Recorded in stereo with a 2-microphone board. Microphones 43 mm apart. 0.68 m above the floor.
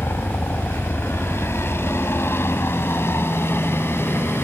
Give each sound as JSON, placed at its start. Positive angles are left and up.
{"t": 0.0, "sound": "a helicopter", "side_deg": 70}